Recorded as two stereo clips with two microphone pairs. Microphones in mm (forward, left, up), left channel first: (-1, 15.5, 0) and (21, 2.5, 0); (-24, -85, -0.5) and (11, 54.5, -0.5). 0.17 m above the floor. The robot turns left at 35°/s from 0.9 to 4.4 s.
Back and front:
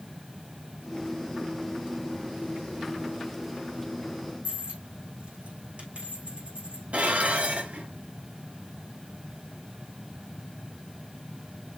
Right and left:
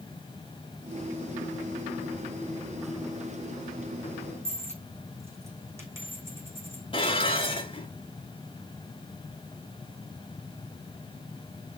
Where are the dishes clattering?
55° right, 1.5 m.